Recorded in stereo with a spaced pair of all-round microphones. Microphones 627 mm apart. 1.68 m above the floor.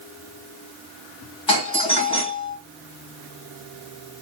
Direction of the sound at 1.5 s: 45° left (ahead or behind).